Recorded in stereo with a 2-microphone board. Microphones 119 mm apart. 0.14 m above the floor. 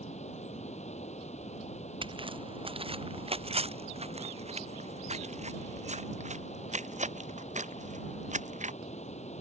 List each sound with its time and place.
0.0 s running water: 70° left (ahead or behind)
2.0 s footsteps: 45° right (ahead or behind); by 8.7 s 85° right